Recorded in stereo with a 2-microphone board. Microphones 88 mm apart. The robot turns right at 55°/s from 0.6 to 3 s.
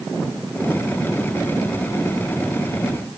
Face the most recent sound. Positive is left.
No sound to turn to.